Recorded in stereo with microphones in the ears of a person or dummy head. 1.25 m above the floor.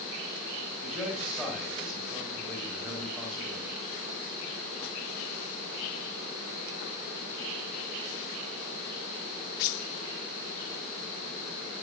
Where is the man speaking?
Centre (ahead or behind), 3.5 m.